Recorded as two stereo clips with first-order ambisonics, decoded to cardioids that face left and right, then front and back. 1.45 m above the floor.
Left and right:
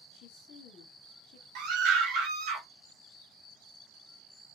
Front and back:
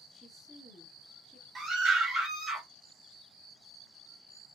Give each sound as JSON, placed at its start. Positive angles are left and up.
{"t": 0.1, "sound": "a woman speaking", "azimuth_deg": 70, "distance_m": 0.9}
{"t": 1.6, "sound": "a scream", "azimuth_deg": -115, "distance_m": 1.0}